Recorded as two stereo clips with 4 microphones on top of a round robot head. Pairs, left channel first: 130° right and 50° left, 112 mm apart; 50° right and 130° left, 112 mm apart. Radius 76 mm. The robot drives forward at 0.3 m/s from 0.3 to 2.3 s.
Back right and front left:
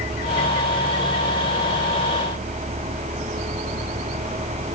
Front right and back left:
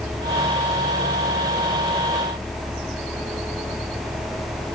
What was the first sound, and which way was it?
Only background noise.